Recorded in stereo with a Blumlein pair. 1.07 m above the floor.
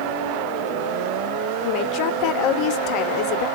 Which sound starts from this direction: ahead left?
A woman speaking, at 1.6 s.